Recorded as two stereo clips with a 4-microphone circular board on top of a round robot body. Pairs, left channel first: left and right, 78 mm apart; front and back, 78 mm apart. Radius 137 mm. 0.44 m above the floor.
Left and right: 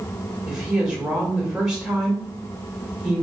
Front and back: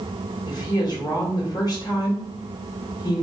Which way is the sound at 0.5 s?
10° right.